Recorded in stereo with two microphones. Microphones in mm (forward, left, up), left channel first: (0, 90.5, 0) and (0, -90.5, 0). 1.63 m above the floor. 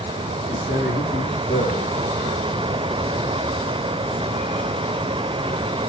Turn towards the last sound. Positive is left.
turn(degrees=70)  # may be behind; listen again after turning